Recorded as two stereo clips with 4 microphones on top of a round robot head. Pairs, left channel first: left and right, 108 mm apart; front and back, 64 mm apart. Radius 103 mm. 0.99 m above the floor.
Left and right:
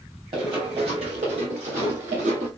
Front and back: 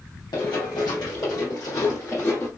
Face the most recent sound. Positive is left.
turn(degrees=-80)